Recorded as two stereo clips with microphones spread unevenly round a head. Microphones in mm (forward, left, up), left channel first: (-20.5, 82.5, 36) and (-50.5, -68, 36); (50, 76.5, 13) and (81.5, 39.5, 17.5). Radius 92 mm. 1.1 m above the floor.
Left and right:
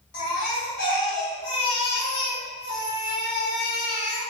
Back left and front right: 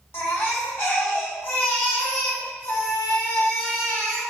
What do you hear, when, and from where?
0.1 s a baby crying: 100° left, 2.0 m